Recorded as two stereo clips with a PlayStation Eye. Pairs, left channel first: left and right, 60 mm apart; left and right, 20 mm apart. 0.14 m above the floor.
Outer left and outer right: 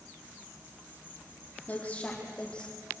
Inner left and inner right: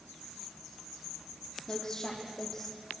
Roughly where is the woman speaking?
Left.